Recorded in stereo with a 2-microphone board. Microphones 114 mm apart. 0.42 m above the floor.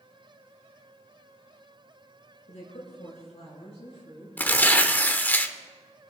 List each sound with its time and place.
2.5 s a woman speaking: 75° left (ahead or behind), 4.5 m; by 4.3 s 55° left (ahead or behind), 6 m
4.4 s tearing paper: 15° left (ahead or behind), 0.7 m